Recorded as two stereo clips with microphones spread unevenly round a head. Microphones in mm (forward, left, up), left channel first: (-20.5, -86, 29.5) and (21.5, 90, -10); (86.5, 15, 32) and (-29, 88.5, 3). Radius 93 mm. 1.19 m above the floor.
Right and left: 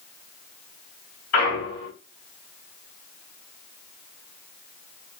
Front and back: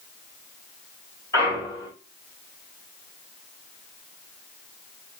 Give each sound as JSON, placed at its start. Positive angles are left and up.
{"t": 1.3, "sound": "a clunk", "azimuth_deg": -110, "distance_m": 3.0}